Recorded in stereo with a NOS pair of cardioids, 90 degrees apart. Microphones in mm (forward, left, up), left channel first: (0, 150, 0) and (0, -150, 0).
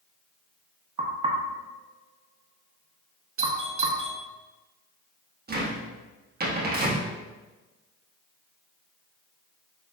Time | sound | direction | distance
1.0 | knocking | 20° right | 0.9 m
3.4 | a doorbell | 45° right | 1.2 m
5.5 | a cupboard door | 30° right | 1.5 m